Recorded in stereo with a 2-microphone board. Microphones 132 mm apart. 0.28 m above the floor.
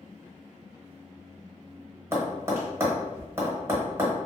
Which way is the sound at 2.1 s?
20° right (ahead or behind).